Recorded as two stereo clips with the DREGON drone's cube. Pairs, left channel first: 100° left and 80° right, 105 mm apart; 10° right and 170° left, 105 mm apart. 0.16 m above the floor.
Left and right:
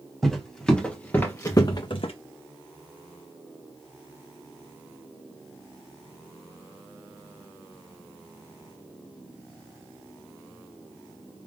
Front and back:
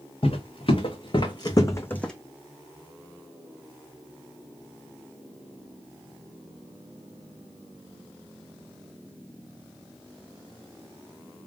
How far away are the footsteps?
About 1.6 m.